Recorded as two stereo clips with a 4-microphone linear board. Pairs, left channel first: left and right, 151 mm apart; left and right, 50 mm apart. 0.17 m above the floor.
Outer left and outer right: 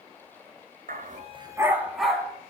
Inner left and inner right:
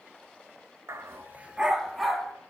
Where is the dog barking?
70° right (ahead or behind), 0.8 m; by 2.3 s 5° left (ahead or behind), 2.0 m.